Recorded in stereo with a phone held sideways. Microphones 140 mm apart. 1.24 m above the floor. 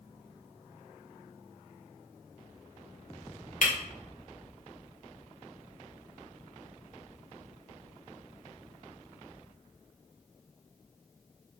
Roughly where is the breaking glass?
Left.